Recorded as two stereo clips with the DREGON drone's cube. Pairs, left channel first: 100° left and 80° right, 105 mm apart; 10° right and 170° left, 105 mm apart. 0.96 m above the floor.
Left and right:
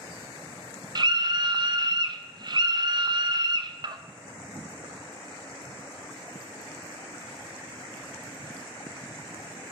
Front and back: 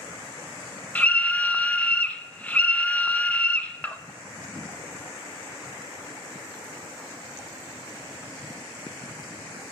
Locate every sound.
0.9 s a scream: 85° right, 0.5 m